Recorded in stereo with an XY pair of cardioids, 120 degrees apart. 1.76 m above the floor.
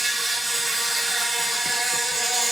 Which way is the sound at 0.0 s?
25° right.